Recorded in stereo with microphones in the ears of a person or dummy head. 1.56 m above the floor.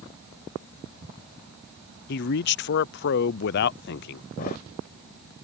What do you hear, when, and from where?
2.1 s a man speaking: 60° left (ahead or behind)
4.4 s a thud: 45° left (ahead or behind)